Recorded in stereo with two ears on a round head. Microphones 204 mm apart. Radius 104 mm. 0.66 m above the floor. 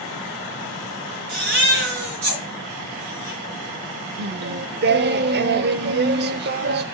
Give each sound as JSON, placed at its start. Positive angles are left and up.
{"t": 1.3, "sound": "a baby crying", "side_deg": -45, "distance_m": 5.5}
{"t": 4.2, "sound": "singing", "side_deg": -50, "distance_m": 0.5}